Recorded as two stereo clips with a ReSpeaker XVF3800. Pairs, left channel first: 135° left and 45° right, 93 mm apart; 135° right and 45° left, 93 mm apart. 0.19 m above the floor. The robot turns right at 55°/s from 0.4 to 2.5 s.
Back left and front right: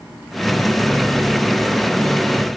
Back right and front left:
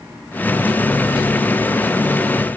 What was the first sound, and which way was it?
Only background noise.